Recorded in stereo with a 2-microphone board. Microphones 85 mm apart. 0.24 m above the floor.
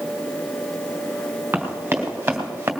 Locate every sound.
1.5 s running footsteps: 20° right (ahead or behind), 3.5 m; by 2.7 s 25° right (ahead or behind), 2.5 m